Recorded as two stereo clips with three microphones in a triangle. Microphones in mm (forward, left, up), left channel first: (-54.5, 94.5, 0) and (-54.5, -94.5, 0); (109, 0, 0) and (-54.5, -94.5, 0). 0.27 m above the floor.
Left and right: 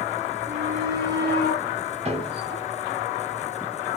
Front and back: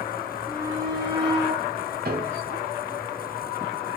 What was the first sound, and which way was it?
A shout, 80° right.